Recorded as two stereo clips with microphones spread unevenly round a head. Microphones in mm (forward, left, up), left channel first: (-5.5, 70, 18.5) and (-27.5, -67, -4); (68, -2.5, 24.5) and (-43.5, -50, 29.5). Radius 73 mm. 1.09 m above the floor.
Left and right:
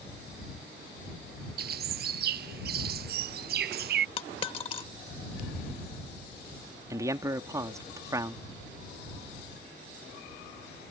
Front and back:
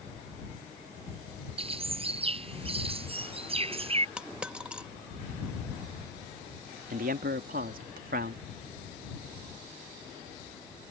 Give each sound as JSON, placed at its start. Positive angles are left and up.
{"t": 1.6, "sound": "a bird", "azimuth_deg": -115}
{"t": 4.2, "sound": "a dropped coin", "azimuth_deg": 120}
{"t": 6.9, "sound": "a man speaking", "azimuth_deg": -165}